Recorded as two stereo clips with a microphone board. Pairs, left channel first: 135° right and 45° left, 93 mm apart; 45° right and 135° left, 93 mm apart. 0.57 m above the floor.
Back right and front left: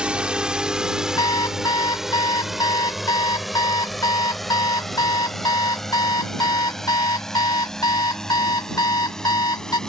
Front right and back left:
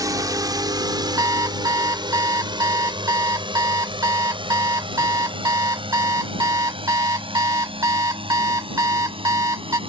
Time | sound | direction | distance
0.0 | a drone | 120° left | ?
1.2 | an alarm clock | 175° right | ?